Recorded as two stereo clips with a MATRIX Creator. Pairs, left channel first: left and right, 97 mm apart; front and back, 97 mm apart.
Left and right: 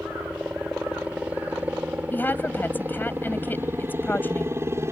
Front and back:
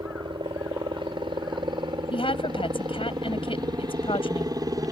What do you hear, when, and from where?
0.0 s a helicopter: 165° right; by 4.9 s 140° right
2.1 s a woman speaking: 20° left